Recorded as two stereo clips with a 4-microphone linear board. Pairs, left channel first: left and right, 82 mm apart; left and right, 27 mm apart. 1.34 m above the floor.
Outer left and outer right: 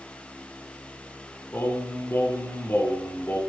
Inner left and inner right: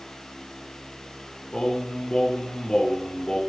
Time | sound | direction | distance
1.5 | singing | 25° left (ahead or behind) | 2.5 m